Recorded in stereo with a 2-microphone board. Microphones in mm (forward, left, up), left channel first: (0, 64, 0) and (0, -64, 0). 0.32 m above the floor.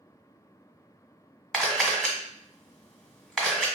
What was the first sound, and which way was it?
A camera shutter, centre (ahead or behind).